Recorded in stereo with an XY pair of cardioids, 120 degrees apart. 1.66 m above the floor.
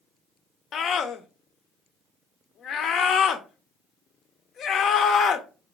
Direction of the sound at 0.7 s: 55° left.